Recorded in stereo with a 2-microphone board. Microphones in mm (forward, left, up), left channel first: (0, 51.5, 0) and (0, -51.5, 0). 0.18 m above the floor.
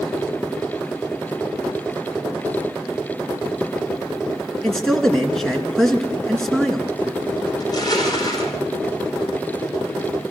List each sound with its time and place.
4.6 s a man speaking: 5° left (ahead or behind), 2 m
7.6 s crushing: 40° left (ahead or behind), 4.5 m